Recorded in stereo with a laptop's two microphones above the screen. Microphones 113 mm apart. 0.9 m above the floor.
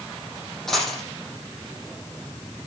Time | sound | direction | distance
0.7 | a dropped coin | 5° left (ahead or behind) | 8.5 m